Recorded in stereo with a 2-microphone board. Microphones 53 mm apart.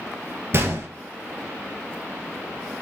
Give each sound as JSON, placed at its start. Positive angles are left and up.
{"t": 0.5, "sound": "a gunshot", "side_deg": -50, "distance_m": 1.0}